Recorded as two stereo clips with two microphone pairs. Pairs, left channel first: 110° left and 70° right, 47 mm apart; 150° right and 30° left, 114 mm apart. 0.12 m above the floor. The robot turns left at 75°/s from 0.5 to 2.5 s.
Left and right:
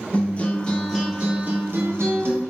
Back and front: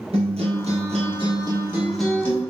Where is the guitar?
50° left, 2.5 m; by 2.4 s 90° right, 2.5 m.